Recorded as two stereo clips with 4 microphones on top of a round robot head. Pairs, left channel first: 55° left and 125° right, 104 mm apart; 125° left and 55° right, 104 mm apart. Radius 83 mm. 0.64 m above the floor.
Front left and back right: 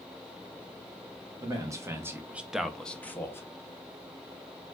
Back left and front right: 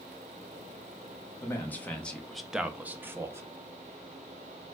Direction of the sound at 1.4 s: 170° right.